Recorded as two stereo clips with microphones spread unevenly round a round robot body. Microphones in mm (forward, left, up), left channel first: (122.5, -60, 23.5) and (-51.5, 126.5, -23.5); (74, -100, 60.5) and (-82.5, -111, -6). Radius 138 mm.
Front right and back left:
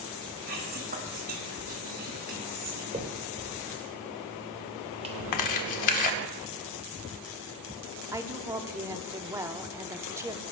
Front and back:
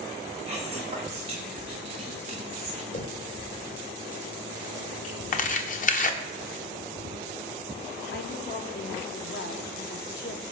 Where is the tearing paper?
40° right, 1.5 m.